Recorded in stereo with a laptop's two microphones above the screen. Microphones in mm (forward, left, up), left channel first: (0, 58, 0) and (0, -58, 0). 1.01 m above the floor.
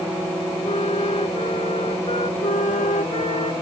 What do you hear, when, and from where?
0.6 s a flute: 60° left (ahead or behind)
2.4 s a flute: 75° left (ahead or behind)